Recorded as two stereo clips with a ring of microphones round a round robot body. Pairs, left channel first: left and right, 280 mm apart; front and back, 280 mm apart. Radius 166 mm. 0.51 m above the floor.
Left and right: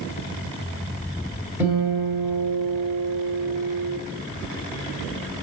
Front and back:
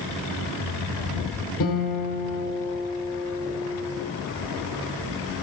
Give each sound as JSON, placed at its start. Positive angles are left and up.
{"t": 1.6, "sound": "a guitar", "azimuth_deg": -5, "distance_m": 3.0}